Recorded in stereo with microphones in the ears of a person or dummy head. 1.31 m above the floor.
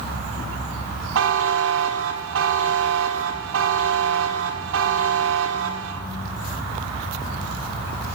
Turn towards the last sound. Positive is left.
turn(degrees=-65)  # may be behind; listen again after turning